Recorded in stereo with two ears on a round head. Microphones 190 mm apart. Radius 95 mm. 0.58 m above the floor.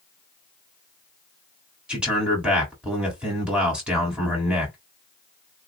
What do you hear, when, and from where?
1.9 s a man speaking: 5° right (ahead or behind), 1.5 m